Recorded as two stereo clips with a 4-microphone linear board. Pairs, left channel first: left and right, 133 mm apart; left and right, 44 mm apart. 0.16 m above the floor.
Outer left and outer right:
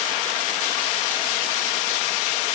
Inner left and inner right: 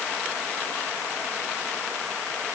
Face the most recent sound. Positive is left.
No sound to turn to.